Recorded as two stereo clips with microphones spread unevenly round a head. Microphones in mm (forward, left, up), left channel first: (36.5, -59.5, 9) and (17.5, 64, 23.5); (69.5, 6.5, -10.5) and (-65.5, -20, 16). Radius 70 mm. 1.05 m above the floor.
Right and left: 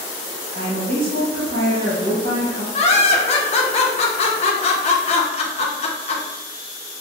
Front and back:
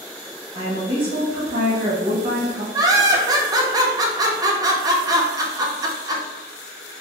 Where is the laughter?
100° right, 0.7 m.